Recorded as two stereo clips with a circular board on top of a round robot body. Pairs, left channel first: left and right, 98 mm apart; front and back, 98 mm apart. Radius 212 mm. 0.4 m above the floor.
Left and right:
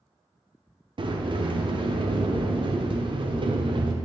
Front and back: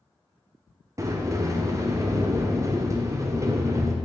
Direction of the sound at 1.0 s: 120° right.